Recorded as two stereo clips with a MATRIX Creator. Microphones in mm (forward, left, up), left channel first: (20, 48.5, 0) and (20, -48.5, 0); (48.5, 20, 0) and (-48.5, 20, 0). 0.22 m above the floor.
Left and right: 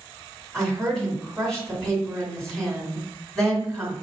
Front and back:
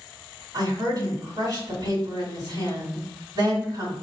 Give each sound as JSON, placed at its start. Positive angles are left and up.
{"t": 0.5, "sound": "a woman speaking", "azimuth_deg": 175, "distance_m": 2.0}